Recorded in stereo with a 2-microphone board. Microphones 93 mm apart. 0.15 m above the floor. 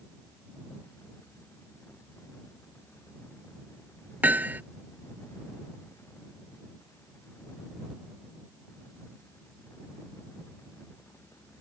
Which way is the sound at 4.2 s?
15° right (ahead or behind).